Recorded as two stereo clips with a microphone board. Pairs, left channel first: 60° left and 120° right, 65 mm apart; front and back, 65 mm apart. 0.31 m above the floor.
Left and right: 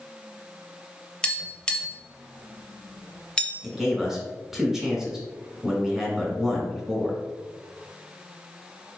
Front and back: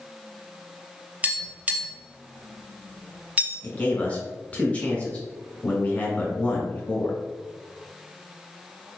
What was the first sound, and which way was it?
Tapping, 130° left.